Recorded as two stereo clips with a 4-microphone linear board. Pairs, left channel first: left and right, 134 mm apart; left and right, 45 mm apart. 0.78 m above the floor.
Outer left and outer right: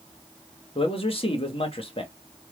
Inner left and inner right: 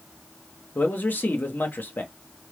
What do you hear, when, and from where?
0.8 s a man speaking: 45° left (ahead or behind), 1.3 m